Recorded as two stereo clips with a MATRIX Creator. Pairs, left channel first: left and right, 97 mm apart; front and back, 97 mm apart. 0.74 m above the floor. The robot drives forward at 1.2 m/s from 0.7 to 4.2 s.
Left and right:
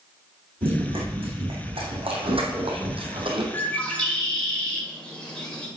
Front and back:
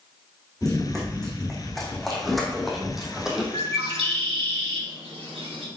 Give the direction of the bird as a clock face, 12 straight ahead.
7 o'clock.